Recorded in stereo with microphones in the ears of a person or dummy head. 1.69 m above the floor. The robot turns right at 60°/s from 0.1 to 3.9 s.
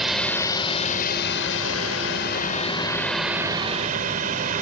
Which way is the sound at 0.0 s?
5° right.